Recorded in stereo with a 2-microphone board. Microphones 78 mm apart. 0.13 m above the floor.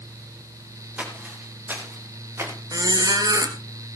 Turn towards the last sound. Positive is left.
turn(degrees=-50)  # may be behind; listen again after turning